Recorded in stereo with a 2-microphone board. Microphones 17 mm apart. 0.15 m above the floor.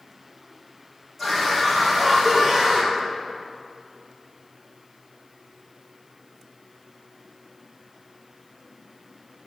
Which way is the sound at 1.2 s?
5° left (ahead or behind).